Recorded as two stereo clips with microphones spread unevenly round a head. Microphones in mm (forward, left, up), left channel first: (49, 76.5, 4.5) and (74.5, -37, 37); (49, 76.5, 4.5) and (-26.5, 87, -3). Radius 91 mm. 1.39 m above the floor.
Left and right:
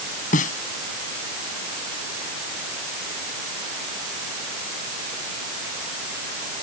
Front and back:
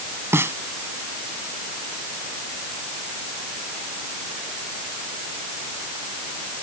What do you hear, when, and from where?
0.3 s a snare drum: 115° left